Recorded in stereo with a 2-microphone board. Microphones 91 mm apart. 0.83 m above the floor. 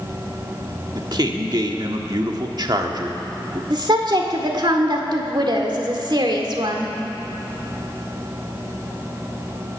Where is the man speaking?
50° right (ahead or behind), 1.5 m.